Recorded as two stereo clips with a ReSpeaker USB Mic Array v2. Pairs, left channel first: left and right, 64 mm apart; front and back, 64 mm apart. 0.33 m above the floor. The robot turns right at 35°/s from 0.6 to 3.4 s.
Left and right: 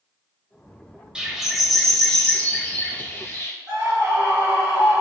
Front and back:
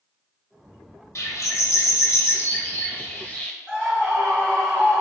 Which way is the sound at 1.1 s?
15° right.